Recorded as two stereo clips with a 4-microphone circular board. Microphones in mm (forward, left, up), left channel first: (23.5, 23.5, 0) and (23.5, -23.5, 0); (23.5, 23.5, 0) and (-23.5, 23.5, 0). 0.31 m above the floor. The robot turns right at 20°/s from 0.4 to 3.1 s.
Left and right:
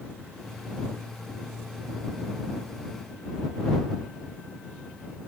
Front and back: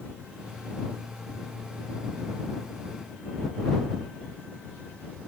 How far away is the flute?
No flute in this recording.